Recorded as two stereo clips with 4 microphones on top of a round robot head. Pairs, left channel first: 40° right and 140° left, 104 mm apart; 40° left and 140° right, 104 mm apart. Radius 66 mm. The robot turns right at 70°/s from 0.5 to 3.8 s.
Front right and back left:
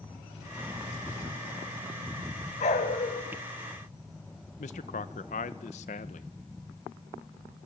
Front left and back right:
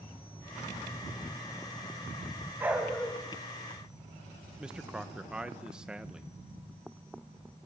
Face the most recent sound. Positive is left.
turn(degrees=-55)